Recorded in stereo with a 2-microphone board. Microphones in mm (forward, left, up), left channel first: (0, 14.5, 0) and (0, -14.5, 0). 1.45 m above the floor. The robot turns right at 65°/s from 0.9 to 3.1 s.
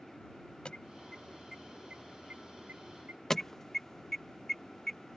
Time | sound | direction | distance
0.7 | an alarm | 35° left (ahead or behind) | ?
3.3 | an alarm | 20° left (ahead or behind) | ?